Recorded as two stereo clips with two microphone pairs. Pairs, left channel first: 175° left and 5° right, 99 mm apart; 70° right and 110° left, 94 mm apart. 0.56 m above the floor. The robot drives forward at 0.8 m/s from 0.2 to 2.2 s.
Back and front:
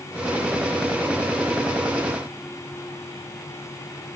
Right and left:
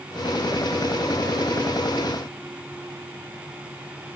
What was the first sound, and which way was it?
Only background noise.